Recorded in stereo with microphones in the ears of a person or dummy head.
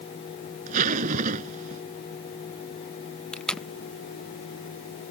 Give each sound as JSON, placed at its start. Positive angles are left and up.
{"t": 0.7, "sound": "a zipper", "side_deg": -50}
{"t": 3.3, "sound": "tape being pulled", "side_deg": 0}